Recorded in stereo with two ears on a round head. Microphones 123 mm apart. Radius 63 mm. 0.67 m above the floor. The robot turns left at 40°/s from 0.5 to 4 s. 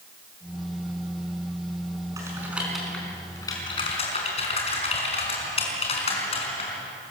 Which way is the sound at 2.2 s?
25° right (ahead or behind).